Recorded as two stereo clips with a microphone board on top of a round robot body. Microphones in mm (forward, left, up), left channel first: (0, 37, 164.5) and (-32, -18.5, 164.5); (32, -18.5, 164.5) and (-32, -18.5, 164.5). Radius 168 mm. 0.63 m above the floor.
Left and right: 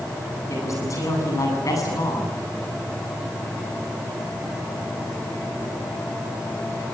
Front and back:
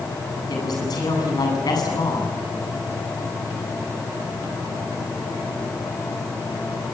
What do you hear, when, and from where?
0.5 s a man speaking: 20° left, 8.5 m; by 2.3 s 25° left, 8 m